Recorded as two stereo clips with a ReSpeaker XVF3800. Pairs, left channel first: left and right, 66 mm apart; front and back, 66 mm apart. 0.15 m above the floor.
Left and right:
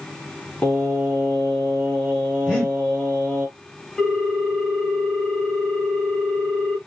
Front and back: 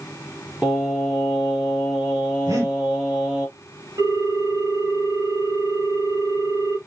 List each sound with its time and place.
0.6 s singing: 130° left, 1.6 m
2.5 s breathing: 165° left, 3.5 m
4.0 s a ringtone: 170° left, 3 m